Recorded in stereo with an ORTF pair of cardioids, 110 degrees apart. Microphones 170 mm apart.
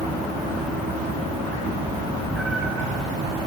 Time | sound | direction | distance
1.6 | a cat meowing | 10° left | 2.5 m